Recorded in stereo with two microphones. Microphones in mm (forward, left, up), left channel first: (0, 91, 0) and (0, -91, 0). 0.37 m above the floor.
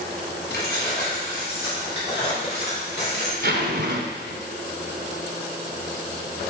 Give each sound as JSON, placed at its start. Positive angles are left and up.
{"t": 0.5, "sound": "keys jangling", "side_deg": 70, "distance_m": 2.5}
{"t": 3.4, "sound": "a zipper", "side_deg": -80, "distance_m": 1.0}